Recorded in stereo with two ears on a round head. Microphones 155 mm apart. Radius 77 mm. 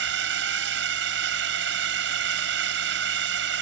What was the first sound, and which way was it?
A drone, 75° right (ahead or behind).